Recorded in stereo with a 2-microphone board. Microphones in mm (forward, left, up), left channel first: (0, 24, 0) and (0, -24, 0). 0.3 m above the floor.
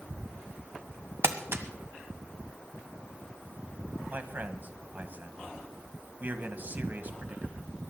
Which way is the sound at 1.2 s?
60° right (ahead or behind).